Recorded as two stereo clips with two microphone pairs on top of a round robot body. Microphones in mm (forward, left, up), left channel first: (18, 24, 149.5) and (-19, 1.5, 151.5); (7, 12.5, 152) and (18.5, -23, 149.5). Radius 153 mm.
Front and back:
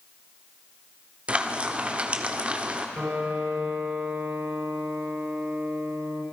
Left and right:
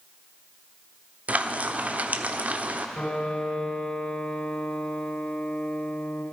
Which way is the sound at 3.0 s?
170° left.